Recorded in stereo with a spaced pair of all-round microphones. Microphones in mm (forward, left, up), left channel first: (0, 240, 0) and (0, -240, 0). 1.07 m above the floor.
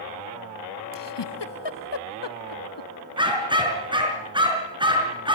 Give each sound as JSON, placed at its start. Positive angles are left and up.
{"t": 0.9, "sound": "a giggle", "side_deg": 65, "distance_m": 0.8}
{"t": 3.2, "sound": "a dog barking", "side_deg": -10, "distance_m": 4.5}